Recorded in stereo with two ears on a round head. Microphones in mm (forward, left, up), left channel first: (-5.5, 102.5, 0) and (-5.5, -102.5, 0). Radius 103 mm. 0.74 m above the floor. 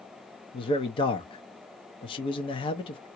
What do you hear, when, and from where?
0.5 s a man speaking: 20° left (ahead or behind), 0.6 m